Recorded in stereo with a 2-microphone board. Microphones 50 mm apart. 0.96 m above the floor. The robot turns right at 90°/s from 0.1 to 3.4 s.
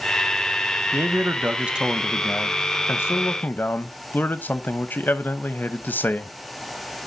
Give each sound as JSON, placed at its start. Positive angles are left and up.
{"t": 0.9, "sound": "a man speaking", "azimuth_deg": -95, "distance_m": 0.8}